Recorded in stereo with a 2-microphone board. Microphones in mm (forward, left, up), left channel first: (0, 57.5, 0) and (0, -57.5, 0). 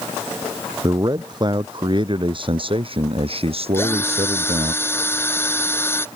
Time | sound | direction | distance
0.8 | a man speaking | 35° right (ahead or behind) | ?
3.7 | a drill | 20° left (ahead or behind) | ?